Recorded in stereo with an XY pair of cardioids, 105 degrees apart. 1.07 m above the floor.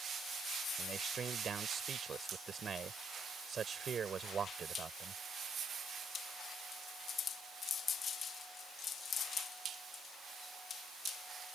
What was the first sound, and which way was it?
A man speaking, 45° right.